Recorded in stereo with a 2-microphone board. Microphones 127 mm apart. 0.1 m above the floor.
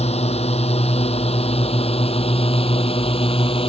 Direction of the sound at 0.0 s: 55° left (ahead or behind).